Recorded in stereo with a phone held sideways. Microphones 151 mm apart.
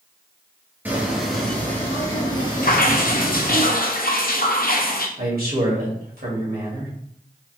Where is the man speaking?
80° right, 1.7 m.